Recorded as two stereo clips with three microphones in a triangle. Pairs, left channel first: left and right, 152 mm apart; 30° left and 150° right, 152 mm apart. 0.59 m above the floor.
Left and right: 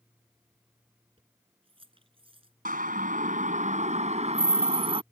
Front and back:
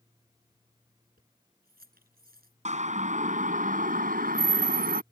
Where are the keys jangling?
145° right.